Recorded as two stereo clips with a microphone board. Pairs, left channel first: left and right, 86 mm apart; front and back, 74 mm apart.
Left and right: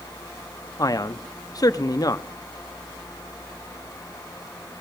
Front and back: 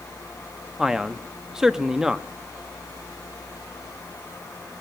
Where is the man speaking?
100° left, 0.7 m.